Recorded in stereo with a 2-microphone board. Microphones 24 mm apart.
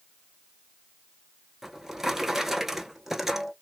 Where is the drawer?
10° right (ahead or behind), 0.7 m.